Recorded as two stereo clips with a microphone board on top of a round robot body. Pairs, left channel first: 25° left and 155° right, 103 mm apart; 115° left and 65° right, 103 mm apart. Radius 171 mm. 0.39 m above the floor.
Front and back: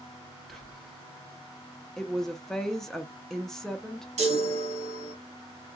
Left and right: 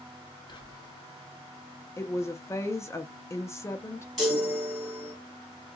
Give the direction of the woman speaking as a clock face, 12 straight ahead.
9 o'clock.